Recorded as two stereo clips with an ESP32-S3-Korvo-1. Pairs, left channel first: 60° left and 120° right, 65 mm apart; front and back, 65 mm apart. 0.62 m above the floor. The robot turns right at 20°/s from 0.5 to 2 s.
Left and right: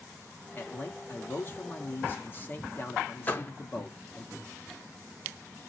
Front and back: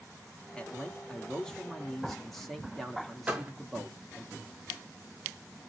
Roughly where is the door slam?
Behind left.